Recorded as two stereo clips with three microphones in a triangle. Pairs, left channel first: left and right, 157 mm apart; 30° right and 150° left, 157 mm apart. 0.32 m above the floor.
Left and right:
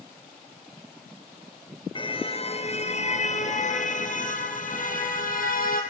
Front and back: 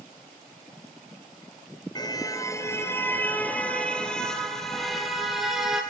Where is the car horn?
35° left, 2.5 m; by 5.8 s 65° left, 5 m.